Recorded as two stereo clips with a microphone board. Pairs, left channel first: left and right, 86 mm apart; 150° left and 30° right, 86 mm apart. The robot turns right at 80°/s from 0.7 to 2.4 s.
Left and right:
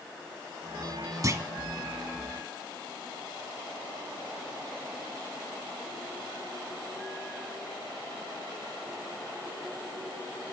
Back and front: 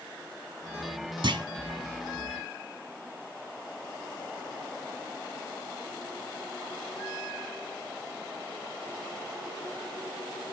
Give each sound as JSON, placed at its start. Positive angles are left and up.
{"t": 1.2, "sound": "a clunk", "azimuth_deg": -45, "distance_m": 1.0}